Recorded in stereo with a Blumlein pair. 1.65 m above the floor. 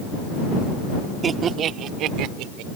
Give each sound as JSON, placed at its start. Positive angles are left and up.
{"t": 1.2, "sound": "laughter", "azimuth_deg": -20}